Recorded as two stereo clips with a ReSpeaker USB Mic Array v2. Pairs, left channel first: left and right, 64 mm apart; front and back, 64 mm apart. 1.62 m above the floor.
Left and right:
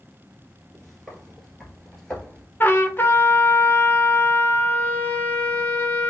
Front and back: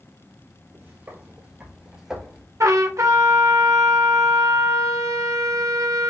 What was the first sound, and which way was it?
Footsteps, 175° left.